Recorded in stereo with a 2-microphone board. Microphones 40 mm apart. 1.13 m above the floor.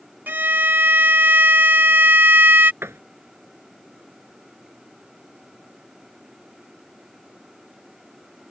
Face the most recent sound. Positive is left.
turn(degrees=-90)